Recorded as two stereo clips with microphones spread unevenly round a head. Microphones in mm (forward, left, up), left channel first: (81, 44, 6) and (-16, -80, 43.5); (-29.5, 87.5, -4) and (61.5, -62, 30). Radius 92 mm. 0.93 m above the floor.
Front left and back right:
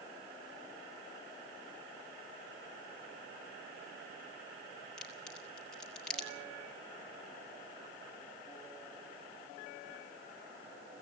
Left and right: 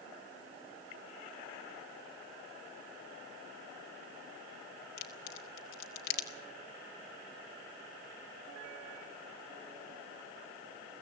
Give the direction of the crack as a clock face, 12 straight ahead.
7 o'clock.